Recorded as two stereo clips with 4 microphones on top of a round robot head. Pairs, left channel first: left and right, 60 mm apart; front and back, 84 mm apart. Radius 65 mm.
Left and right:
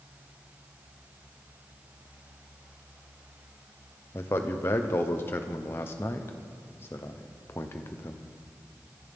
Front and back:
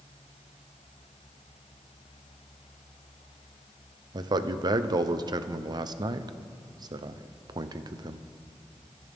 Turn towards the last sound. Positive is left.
turn(degrees=145)